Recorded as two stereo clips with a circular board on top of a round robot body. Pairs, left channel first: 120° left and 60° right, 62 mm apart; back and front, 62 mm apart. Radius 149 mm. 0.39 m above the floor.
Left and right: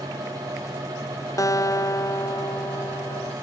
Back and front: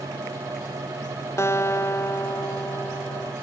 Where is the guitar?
140° left.